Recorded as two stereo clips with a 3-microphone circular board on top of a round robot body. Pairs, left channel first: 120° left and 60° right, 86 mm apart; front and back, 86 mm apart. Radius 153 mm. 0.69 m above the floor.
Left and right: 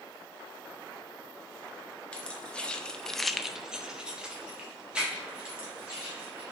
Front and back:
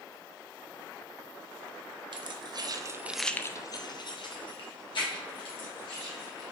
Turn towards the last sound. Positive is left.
turn(degrees=20)